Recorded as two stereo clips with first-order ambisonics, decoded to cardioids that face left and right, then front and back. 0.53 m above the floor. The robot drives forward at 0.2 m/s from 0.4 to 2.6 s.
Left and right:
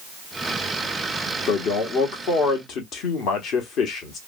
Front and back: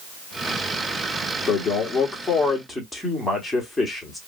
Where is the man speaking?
65° left, 1.0 m; by 4.2 s 85° left, 1.0 m.